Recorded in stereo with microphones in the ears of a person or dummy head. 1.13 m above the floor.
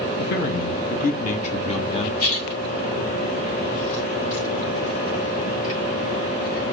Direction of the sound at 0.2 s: 60° left (ahead or behind).